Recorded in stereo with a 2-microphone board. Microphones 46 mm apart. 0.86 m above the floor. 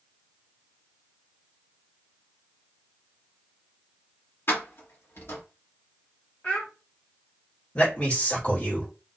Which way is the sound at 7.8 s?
35° left (ahead or behind).